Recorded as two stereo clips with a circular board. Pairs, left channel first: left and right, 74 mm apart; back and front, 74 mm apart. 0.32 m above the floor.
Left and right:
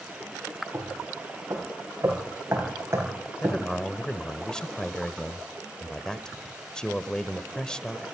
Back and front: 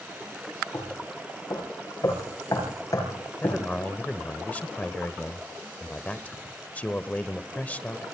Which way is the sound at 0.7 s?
145° right.